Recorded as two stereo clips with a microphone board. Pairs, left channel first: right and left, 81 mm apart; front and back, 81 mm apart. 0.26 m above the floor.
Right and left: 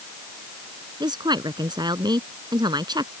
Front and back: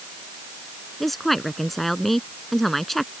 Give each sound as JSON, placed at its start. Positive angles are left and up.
{"t": 1.0, "sound": "a woman speaking", "azimuth_deg": 85}